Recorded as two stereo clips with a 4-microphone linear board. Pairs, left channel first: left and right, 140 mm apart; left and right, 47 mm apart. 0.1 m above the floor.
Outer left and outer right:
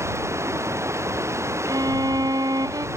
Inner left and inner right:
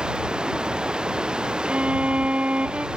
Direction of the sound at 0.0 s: 20° right (ahead or behind).